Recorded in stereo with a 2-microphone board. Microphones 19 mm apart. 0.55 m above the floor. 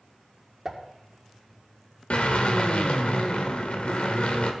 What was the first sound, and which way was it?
A pop, 20° right (ahead or behind).